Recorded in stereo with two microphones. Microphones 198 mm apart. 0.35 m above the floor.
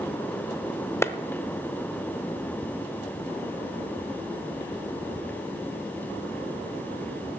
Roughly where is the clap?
Centre.